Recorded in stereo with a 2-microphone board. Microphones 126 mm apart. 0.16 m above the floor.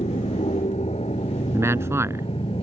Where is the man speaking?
20° right (ahead or behind).